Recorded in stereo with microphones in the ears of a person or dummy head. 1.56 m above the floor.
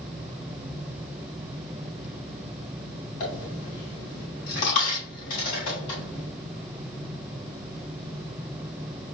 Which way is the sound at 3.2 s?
40° left (ahead or behind).